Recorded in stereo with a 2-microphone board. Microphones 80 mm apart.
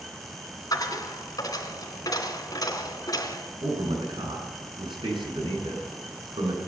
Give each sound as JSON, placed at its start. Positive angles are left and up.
{"t": 0.7, "sound": "a dropped coin", "side_deg": 50, "distance_m": 2.5}
{"t": 3.6, "sound": "a man speaking", "side_deg": -85, "distance_m": 6.5}